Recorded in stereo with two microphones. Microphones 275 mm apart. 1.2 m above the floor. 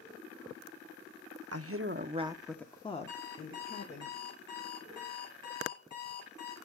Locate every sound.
1.5 s a woman speaking: 60° right (ahead or behind), 0.8 m; by 4.1 s 35° left (ahead or behind), 1.8 m
3.1 s an alarm clock: 85° left, 3 m